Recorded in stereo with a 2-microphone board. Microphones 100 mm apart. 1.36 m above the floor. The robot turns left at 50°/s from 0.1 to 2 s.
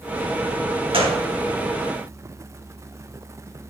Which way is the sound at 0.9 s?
60° right (ahead or behind).